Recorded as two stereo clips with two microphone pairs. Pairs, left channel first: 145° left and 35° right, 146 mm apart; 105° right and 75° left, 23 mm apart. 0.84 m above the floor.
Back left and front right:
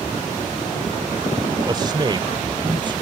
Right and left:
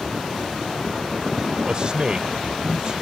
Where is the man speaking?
25° left; by 3.0 s 20° left.